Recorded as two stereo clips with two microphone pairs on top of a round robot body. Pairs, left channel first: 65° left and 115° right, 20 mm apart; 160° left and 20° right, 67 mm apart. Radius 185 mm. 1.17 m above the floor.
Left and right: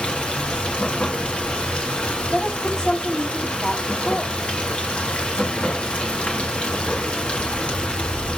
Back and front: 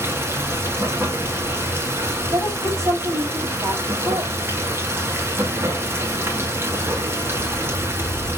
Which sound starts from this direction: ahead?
A woman speaking, at 2.3 s.